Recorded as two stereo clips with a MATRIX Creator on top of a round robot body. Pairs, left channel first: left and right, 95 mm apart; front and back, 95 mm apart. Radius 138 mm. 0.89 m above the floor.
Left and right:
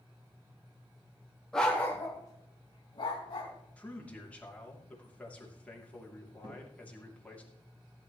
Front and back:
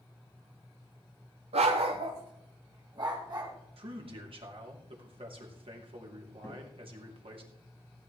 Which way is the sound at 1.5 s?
175° left.